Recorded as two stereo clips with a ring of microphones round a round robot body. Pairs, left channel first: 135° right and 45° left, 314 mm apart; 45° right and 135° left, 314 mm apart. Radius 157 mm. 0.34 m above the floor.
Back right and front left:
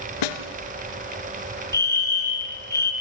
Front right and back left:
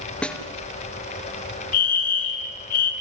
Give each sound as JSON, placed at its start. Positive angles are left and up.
{"t": 0.2, "sound": "a snare drum", "azimuth_deg": -130, "distance_m": 1.7}
{"t": 1.7, "sound": "a fire alarm", "azimuth_deg": -55, "distance_m": 3.0}